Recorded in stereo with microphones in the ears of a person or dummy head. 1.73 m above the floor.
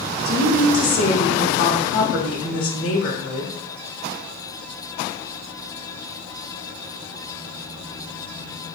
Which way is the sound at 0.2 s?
70° left (ahead or behind).